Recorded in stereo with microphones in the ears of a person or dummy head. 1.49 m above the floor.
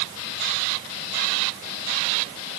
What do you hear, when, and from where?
Only background noise.